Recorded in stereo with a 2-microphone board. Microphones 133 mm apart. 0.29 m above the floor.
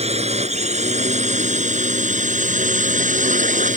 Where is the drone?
55° right (ahead or behind); by 3.8 s 70° right (ahead or behind).